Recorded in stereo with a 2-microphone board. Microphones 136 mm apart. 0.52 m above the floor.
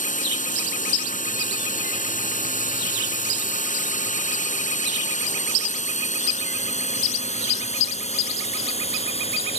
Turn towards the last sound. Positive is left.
turn(degrees=50)  # may be behind; listen again after turning